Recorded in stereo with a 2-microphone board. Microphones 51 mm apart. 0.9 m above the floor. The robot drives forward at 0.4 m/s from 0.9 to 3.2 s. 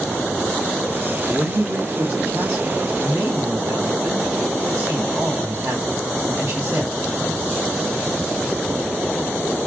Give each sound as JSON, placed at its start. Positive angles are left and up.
{"t": 1.3, "sound": "a man speaking", "side_deg": -70, "distance_m": 1.4}